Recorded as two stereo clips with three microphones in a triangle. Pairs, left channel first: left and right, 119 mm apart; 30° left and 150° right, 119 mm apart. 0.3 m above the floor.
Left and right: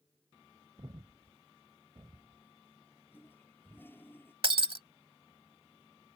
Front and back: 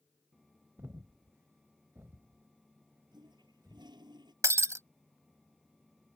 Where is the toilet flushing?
160° left.